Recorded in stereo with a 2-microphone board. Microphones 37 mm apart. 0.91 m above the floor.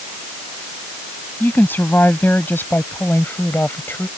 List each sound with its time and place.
1.4 s a woman speaking: 60° left (ahead or behind); by 4.1 s 85° left